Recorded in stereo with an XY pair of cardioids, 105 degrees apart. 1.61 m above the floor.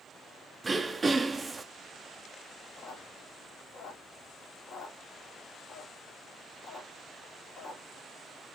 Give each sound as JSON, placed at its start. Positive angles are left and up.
{"t": 0.6, "sound": "throat clearing", "azimuth_deg": -25, "distance_m": 0.5}
{"t": 2.8, "sound": "a squeak", "azimuth_deg": 50, "distance_m": 1.9}